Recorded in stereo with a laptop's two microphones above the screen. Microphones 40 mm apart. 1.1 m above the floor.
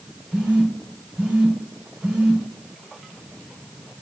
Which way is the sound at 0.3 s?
20° right (ahead or behind).